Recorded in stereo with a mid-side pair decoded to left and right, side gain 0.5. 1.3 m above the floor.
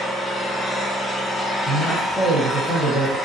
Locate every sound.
0.0 s an engine running: 25° left, 0.7 m
1.6 s a man speaking: 30° left, 1.4 m